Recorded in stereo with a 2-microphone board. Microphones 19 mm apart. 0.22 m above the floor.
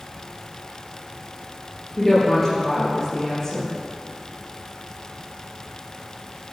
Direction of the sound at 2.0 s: 15° left (ahead or behind).